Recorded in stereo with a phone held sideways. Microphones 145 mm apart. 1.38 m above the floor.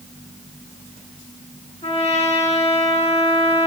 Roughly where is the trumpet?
Left.